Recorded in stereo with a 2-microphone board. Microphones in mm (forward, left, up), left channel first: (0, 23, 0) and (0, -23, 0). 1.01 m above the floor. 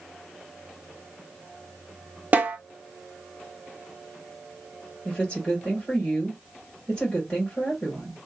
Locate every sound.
2.3 s a snare drum: 35° right (ahead or behind), 0.6 m
5.0 s a woman speaking: 20° left (ahead or behind), 1.5 m